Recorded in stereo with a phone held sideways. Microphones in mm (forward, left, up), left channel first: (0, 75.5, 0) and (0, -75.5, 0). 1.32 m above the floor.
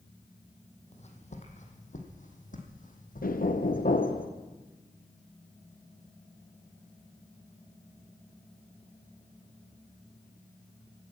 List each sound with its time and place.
0.9 s footsteps: 50° left (ahead or behind), 2.5 m; by 4.1 s 65° left (ahead or behind), 3 m
3.2 s knocking: 70° left (ahead or behind), 0.9 m